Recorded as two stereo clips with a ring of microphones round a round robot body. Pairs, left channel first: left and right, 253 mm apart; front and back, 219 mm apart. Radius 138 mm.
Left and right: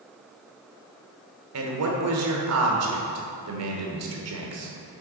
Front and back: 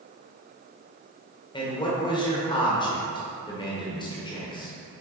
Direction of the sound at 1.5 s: 70° right.